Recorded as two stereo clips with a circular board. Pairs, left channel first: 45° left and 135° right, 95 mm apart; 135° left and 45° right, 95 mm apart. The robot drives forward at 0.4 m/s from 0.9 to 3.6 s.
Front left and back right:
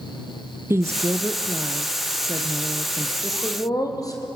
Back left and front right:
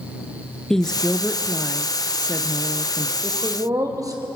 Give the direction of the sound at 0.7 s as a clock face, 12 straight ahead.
5 o'clock.